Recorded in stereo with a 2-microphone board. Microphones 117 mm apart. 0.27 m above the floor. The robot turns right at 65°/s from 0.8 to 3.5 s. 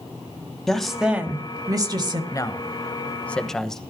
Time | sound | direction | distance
0.7 | a woman speaking | 175° left | 1.7 m
2.3 | a man speaking | 30° left (ahead or behind) | 1.1 m